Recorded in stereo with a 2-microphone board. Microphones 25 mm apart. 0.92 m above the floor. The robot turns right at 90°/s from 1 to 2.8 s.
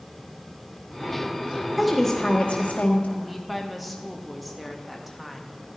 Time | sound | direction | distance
1.8 | a woman speaking | 10° right | 1.1 m
3.2 | a woman speaking | centre (ahead or behind) | 0.8 m